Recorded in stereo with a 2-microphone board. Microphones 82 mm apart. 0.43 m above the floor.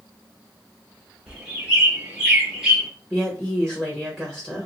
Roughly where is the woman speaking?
Centre.